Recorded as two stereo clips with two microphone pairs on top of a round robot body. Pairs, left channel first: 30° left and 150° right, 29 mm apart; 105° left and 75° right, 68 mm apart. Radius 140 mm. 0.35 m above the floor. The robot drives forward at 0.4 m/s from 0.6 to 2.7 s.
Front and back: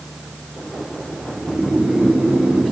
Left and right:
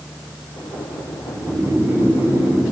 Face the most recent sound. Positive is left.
turn(degrees=-120)